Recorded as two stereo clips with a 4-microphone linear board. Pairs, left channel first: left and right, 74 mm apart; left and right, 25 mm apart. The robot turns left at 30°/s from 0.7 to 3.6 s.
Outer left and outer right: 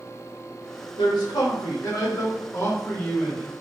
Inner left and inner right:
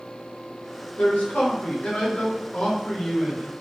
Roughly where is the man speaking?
Left.